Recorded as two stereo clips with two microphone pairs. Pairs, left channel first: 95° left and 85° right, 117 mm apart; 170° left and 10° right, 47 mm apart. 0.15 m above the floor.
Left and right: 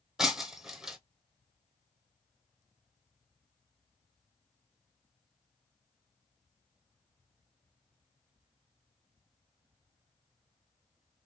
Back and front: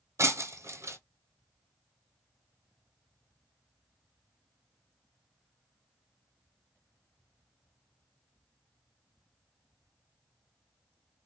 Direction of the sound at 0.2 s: 5° right.